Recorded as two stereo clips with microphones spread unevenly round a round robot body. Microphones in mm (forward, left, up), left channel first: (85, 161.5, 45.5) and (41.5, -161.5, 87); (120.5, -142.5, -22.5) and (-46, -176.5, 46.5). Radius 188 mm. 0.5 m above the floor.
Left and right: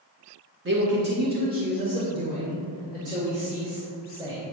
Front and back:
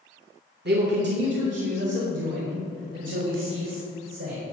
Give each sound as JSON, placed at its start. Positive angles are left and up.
{"t": 0.7, "sound": "a man speaking", "azimuth_deg": -145, "distance_m": 1.4}